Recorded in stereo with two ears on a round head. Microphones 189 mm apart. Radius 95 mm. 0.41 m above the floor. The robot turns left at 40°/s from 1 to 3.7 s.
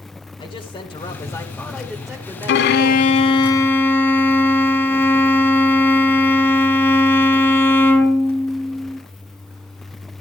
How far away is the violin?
About 0.8 m.